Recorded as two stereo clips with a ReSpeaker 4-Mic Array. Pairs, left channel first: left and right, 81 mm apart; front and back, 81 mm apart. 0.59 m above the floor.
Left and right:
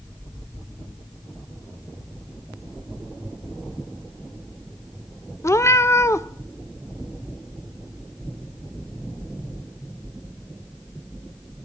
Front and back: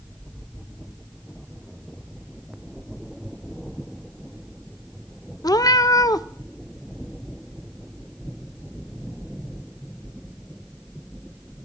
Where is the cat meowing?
35° left, 0.5 m.